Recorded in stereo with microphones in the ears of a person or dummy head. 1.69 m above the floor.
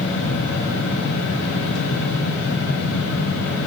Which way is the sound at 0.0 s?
60° left (ahead or behind).